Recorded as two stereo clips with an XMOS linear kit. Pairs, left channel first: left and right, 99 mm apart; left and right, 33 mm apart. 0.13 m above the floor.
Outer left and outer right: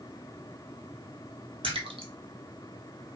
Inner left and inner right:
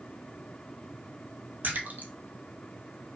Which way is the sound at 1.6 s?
75° right (ahead or behind).